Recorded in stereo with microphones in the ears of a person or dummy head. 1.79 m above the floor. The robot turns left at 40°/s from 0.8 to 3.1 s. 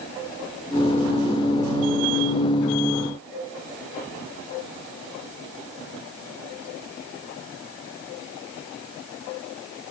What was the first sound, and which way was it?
Only background noise.